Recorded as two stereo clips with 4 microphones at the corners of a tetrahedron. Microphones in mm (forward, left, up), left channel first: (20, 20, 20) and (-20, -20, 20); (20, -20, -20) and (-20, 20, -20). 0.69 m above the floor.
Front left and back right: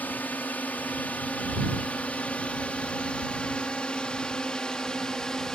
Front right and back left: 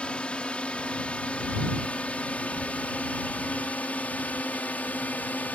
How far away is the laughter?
I don't hear laughter.